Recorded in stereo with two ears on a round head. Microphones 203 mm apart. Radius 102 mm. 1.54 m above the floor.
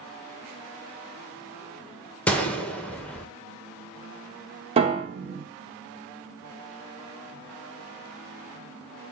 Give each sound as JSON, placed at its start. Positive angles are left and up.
{"t": 2.3, "sound": "a gunshot", "side_deg": 5, "distance_m": 0.8}
{"t": 4.8, "sound": "a piano", "side_deg": -25, "distance_m": 0.9}